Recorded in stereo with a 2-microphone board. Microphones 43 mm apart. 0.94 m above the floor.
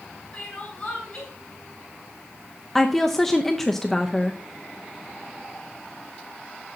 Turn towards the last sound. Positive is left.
turn(degrees=5)  # may be behind; listen again after turning